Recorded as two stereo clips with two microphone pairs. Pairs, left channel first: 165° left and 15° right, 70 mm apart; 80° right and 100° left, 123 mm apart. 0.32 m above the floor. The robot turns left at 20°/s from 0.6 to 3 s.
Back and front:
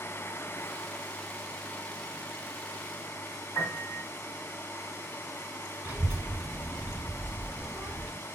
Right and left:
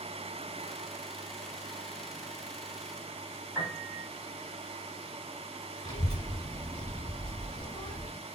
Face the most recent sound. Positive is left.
turn(degrees=-65)